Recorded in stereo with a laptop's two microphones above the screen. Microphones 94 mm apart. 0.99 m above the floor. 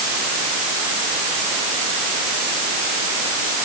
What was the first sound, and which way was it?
Only background noise.